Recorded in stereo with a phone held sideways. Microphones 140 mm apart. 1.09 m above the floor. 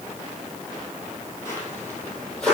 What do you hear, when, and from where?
1.4 s footsteps: 20° left (ahead or behind), 2.5 m; by 2.6 s 5° left (ahead or behind), 2.5 m